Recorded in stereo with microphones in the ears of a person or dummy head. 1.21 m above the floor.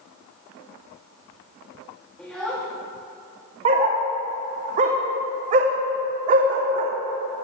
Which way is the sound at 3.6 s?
30° right (ahead or behind).